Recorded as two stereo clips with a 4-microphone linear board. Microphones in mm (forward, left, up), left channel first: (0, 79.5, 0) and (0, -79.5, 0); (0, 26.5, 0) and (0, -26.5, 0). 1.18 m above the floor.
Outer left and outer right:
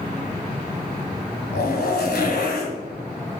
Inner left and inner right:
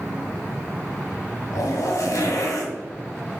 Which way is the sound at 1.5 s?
80° left.